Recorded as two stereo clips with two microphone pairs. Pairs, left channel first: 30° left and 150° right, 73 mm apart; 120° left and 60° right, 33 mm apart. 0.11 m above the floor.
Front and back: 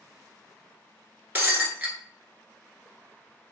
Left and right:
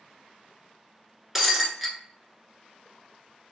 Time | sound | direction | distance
1.4 | breaking glass | 130° right | 0.8 m